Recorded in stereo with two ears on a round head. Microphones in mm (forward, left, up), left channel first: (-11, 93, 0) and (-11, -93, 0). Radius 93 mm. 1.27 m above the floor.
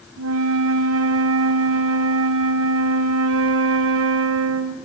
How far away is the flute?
About 0.8 m.